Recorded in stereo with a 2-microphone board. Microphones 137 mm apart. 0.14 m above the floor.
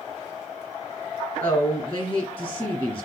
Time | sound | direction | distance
1.4 | a woman speaking | 20° left (ahead or behind) | 1.8 m